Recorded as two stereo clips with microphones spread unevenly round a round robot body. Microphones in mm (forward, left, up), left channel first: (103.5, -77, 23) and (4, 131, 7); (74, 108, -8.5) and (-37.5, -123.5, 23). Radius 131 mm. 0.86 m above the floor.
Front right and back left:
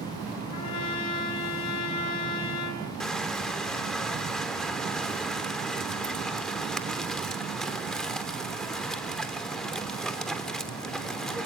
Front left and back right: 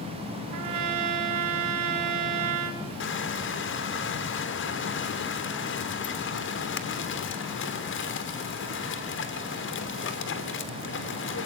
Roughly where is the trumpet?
Right.